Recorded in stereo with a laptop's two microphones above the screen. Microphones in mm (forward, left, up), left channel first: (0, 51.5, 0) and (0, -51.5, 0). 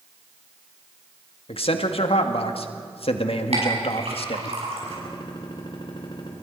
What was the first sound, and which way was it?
A man speaking, 70° left (ahead or behind).